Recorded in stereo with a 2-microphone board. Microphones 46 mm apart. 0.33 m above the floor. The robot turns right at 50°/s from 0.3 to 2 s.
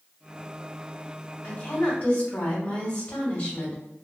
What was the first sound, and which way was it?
A woman speaking, 30° left (ahead or behind).